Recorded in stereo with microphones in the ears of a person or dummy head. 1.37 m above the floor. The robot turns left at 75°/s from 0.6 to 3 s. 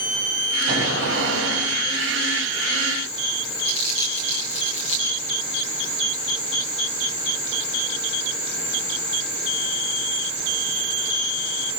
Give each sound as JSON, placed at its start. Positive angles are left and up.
{"t": 0.7, "sound": "an explosion", "azimuth_deg": -40, "distance_m": 8.5}
{"t": 3.6, "sound": "crumpling", "side_deg": 30, "distance_m": 9.0}